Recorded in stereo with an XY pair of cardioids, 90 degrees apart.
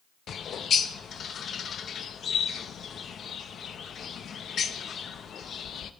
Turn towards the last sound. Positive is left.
turn(degrees=60)